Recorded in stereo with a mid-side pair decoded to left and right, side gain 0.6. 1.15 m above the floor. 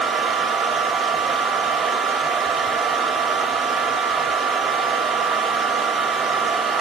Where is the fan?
35° right, 2.5 m.